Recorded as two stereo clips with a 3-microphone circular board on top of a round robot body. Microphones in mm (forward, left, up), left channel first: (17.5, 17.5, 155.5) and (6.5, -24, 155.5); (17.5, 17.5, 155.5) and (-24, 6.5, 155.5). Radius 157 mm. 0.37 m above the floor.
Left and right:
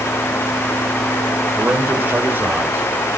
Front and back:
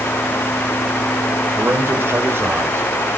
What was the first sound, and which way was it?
A man speaking, 145° right.